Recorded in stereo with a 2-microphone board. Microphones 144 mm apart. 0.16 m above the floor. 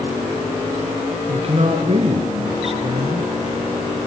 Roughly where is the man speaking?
Right.